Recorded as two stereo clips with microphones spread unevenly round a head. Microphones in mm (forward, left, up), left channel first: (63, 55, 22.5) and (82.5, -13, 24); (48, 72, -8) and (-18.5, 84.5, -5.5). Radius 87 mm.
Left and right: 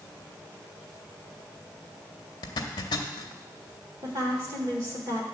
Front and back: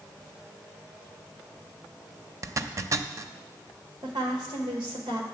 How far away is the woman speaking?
About 1.2 m.